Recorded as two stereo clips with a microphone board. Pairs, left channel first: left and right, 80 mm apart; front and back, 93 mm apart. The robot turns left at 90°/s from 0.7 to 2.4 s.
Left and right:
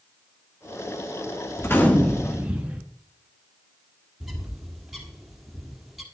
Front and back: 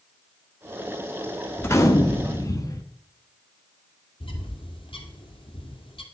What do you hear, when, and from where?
1.6 s a gunshot: 55° left, 1.3 m; by 2.9 s 20° right, 1.3 m
4.2 s a bird: 5° right, 1.8 m